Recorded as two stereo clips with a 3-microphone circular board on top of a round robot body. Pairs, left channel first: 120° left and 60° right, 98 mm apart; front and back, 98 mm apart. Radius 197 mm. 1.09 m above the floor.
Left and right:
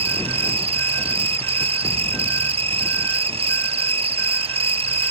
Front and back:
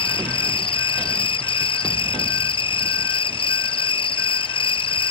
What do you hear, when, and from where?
0.0 s an insect: 35° right